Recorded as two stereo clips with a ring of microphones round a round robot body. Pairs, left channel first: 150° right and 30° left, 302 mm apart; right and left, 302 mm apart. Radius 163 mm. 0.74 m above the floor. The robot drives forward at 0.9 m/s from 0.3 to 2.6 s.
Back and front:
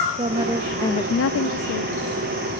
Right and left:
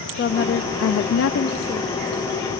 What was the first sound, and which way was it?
A woman speaking, 35° right.